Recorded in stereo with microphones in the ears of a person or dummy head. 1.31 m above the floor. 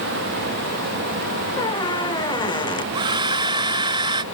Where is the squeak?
20° left (ahead or behind).